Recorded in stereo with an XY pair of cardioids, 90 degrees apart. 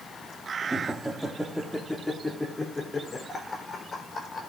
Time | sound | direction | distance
0.6 | laughter | 25° right | 2 m